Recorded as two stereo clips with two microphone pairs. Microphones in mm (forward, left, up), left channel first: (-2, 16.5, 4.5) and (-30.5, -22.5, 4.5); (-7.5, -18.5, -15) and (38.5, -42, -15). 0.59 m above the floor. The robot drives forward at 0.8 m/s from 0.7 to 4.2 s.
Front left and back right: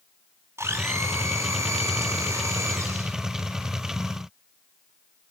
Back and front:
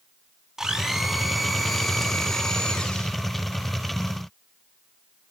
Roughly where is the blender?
Right.